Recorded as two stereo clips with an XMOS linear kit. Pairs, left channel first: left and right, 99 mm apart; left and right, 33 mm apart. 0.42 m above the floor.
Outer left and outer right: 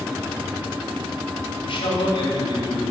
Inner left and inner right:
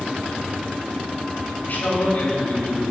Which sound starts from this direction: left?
A man speaking, at 1.6 s.